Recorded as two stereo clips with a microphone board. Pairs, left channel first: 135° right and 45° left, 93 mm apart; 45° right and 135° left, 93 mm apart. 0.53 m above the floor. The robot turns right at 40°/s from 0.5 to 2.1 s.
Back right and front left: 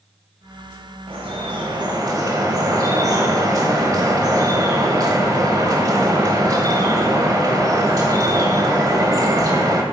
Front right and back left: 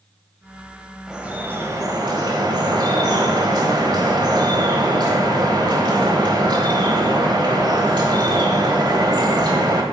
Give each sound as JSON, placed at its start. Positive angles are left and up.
{"t": 1.1, "sound": "dripping", "azimuth_deg": 55, "distance_m": 1.0}